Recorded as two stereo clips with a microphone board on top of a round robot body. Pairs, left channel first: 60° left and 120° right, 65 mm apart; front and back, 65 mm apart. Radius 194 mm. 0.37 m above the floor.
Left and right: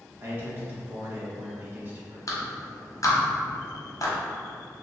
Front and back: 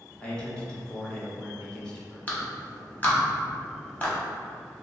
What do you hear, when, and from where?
0.2 s a man speaking: 75° right, 1.0 m
2.3 s a clap: 60° left, 1.1 m